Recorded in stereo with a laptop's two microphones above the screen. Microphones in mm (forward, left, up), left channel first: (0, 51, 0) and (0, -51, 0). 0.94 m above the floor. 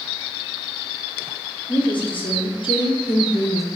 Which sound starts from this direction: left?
A woman speaking, at 1.7 s.